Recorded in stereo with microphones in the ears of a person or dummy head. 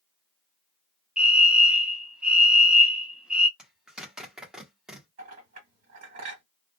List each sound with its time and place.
1.2 s a fire alarm: 5° right (ahead or behind), 0.6 m
3.6 s a zipper: 5° right (ahead or behind), 0.9 m
5.2 s a clink: 45° right (ahead or behind), 1.4 m